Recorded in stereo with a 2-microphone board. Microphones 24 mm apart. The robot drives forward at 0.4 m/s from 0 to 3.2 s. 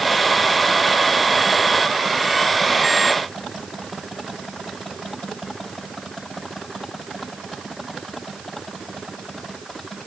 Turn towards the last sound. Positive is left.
No sound to turn to.